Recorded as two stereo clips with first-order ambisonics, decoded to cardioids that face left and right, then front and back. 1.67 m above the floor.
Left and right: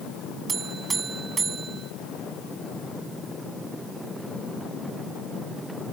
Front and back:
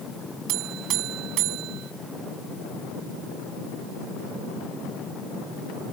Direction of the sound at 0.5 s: 160° right.